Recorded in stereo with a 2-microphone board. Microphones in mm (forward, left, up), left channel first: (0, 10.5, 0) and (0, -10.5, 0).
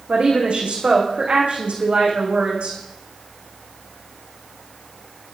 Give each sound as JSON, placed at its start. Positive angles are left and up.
{"t": 0.1, "sound": "a woman speaking", "side_deg": -65, "distance_m": 6.0}